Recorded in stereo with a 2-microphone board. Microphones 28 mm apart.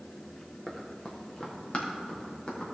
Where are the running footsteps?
25° left (ahead or behind), 2 m; by 2.7 s 40° left (ahead or behind), 4 m.